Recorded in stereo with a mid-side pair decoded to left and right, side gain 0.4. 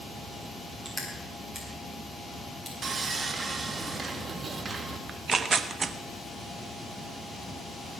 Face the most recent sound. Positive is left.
turn(degrees=-45)